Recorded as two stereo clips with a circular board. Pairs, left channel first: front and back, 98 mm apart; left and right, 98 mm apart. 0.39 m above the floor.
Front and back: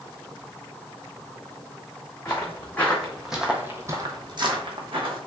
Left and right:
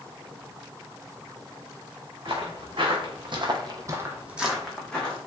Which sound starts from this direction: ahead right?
Footsteps, at 2.2 s.